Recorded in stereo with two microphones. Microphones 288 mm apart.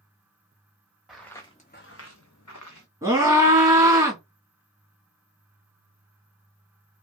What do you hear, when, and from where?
1.1 s footsteps: centre (ahead or behind), 0.8 m; by 2.9 s 80° left, 0.9 m
3.0 s a scream: 10° right (ahead or behind), 1.3 m